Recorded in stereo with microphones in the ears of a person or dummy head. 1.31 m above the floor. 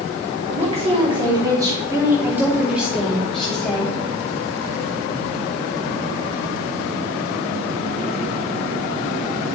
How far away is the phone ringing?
No phone ringing in this recording.